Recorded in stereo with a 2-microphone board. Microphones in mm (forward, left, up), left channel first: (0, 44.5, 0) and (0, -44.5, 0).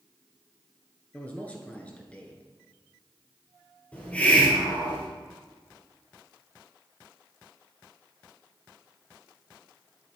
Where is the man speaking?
15° left (ahead or behind), 1.7 m.